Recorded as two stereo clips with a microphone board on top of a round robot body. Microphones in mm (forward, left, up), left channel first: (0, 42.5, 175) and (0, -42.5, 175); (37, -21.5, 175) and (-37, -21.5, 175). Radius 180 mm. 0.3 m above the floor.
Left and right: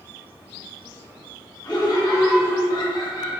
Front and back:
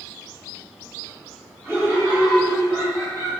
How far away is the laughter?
About 3 m.